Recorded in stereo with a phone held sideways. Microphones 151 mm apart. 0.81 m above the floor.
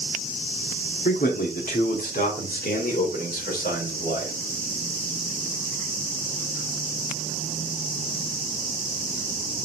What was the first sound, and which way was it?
A man speaking, 70° left (ahead or behind).